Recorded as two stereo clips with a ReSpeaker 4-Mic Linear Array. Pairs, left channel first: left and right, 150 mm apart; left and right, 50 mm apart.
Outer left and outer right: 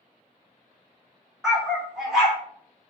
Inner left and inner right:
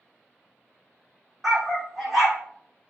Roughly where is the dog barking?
Centre.